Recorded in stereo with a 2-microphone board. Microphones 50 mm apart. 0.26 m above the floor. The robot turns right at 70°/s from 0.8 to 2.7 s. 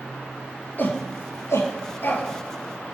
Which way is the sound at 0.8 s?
40° left (ahead or behind).